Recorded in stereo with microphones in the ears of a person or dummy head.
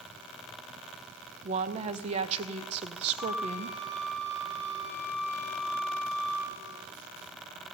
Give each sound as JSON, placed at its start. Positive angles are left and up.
{"t": 1.4, "sound": "a woman speaking", "side_deg": -40, "distance_m": 0.6}
{"t": 3.2, "sound": "a flute", "side_deg": -35, "distance_m": 6.5}